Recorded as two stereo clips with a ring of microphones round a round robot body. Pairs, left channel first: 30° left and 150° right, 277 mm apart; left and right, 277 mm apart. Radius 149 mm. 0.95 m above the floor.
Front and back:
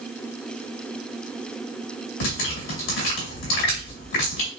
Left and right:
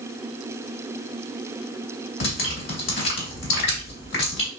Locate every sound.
2.2 s dripping: 40° left, 2 m